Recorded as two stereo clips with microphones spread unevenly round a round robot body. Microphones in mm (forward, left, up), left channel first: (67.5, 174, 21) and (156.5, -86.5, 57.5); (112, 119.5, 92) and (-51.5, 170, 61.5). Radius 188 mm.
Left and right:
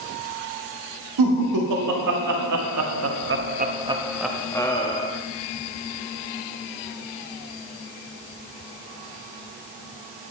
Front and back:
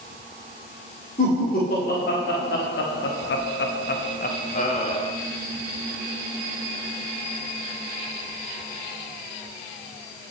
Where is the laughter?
75° right, 2.5 m; by 5.1 s 45° left, 1.9 m.